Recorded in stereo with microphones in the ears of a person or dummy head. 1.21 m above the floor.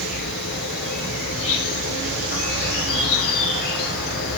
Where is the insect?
55° left (ahead or behind), 2.5 m.